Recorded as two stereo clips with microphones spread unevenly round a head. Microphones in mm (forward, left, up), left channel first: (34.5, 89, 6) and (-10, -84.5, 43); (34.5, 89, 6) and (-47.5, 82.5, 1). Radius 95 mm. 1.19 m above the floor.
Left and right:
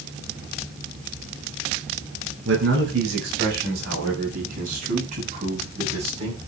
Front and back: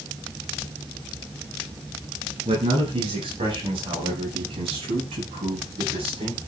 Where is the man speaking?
130° right, 7 m; by 6.4 s 165° right, 8.5 m.